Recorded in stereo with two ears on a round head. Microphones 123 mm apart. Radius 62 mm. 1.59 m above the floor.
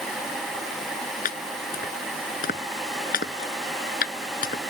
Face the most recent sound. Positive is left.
turn(degrees=70)  # may be behind; listen again after turning